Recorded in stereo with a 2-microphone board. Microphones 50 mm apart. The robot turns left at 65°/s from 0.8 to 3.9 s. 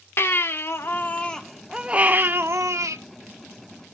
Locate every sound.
0.2 s a baby crying: 50° left, 1.1 m; by 3.0 s 90° right, 1.1 m